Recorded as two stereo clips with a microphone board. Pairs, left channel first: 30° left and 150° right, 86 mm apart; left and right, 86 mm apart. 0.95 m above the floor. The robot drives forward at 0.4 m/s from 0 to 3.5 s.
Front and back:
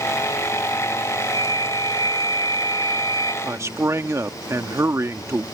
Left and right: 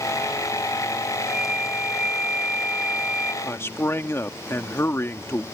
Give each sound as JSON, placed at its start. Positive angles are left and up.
{"t": 1.2, "sound": "a flute", "azimuth_deg": -10}
{"t": 3.4, "sound": "a man speaking", "azimuth_deg": 150}